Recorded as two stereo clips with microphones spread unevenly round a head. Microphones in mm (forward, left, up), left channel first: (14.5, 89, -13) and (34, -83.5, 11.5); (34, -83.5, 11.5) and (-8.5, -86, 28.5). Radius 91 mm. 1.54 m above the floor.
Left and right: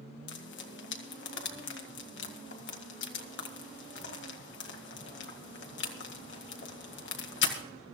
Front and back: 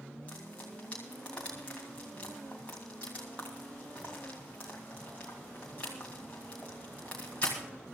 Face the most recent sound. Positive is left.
turn(degrees=80)